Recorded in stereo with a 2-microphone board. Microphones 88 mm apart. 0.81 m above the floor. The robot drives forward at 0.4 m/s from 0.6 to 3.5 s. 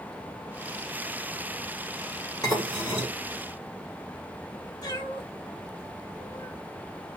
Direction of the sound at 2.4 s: 45° left (ahead or behind).